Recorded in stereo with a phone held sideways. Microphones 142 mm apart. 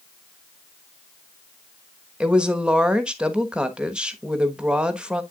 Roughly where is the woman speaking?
Centre.